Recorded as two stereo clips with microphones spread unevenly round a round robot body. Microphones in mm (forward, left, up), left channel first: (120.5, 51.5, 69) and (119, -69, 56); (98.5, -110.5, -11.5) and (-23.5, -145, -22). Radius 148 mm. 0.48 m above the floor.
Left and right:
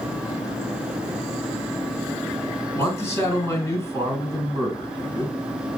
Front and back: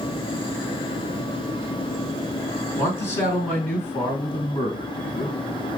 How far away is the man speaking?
About 3 m.